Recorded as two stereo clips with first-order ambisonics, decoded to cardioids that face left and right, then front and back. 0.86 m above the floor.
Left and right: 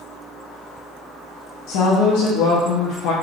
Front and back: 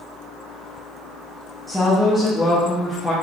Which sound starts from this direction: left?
A woman speaking, at 1.7 s.